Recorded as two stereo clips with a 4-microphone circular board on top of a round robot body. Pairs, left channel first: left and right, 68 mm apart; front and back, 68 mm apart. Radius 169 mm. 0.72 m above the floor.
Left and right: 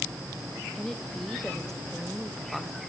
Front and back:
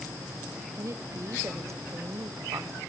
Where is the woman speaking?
170° left, 1.1 m.